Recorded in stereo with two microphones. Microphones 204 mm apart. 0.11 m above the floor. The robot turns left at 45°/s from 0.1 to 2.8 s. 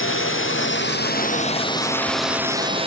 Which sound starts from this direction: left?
A drone, at 0.0 s.